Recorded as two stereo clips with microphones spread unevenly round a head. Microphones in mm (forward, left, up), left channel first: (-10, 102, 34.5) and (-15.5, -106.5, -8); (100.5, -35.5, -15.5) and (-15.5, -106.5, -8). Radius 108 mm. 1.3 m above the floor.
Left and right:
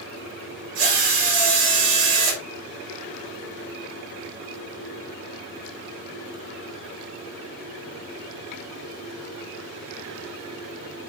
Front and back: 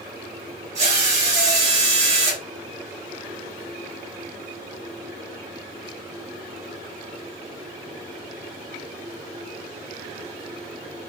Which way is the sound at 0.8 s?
115° right.